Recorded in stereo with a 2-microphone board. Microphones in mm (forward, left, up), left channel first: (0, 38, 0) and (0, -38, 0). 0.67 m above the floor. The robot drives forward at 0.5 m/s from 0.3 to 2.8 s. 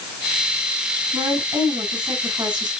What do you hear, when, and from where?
1.1 s a woman speaking: 75° right (ahead or behind), 7 m; by 2.7 s 80° right, 7 m